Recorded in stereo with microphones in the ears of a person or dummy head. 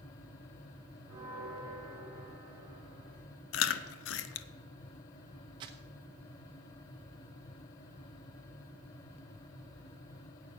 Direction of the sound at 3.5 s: 85° left.